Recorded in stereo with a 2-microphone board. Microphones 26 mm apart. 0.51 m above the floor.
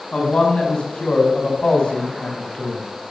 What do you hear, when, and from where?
0.1 s a man speaking: 35° left (ahead or behind), 5 m